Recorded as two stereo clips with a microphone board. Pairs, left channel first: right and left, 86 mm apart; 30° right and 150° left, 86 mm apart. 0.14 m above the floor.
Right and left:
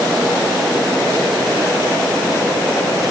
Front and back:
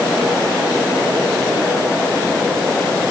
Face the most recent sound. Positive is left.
No sound to turn to.